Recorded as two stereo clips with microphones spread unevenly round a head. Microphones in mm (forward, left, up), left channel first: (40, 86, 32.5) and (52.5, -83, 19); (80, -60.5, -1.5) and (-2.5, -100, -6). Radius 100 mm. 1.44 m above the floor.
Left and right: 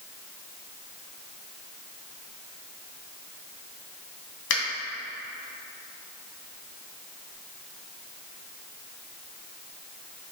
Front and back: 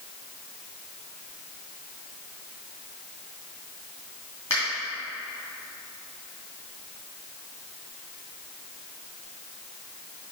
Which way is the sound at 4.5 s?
100° left.